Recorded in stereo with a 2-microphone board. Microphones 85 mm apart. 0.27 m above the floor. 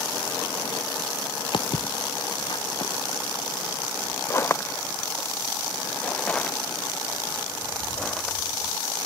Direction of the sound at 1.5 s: 75° left (ahead or behind).